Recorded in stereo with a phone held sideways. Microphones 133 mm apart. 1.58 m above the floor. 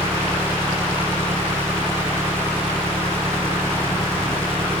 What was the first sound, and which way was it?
An engine running, 20° right (ahead or behind).